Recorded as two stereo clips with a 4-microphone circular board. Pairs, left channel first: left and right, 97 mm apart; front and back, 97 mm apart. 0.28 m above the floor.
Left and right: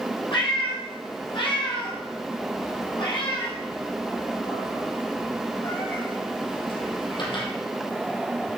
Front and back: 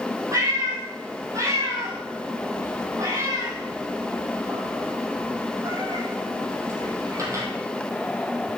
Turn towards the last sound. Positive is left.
turn(degrees=125)